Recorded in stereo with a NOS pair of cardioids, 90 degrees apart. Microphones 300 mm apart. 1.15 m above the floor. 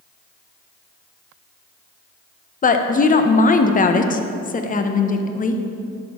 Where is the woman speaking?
30° left, 0.7 m.